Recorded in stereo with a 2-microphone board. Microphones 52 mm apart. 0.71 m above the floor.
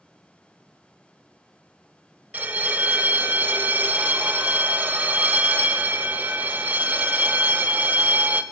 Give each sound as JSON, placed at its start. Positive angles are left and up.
{"t": 2.3, "sound": "a bell", "side_deg": -35, "distance_m": 0.5}